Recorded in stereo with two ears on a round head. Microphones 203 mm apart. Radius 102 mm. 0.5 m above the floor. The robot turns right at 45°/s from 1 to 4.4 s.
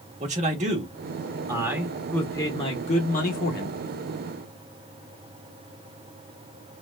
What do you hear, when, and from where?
0.2 s a man speaking: 45° right, 1.1 m; by 3.8 s 80° left, 1.1 m